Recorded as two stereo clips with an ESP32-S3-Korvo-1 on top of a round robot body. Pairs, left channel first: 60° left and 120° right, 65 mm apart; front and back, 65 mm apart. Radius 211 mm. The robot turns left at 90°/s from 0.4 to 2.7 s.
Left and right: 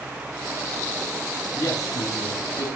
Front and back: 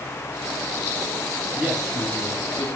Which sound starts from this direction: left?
A man speaking, at 1.6 s.